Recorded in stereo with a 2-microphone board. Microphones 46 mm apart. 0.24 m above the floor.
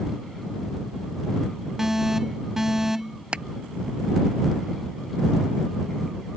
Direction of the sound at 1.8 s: 10° right (ahead or behind).